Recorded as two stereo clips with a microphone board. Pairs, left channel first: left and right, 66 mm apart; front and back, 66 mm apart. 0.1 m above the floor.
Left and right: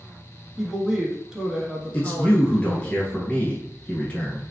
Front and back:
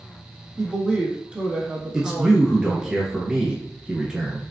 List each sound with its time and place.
0.6 s a woman speaking: 150° right, 1.1 m
1.9 s a man speaking: 120° left, 1.2 m